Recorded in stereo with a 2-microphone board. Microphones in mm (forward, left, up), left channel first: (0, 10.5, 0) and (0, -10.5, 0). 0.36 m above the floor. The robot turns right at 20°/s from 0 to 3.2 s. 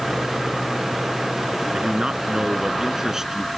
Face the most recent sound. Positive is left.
turn(degrees=-25)  # may be behind; listen again after turning